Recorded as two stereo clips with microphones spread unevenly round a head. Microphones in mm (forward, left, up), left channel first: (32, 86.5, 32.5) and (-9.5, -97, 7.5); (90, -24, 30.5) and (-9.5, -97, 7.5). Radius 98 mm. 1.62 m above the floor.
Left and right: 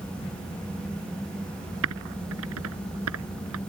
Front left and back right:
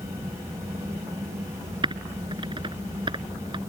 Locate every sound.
1.8 s typing on a keyboard: 95° right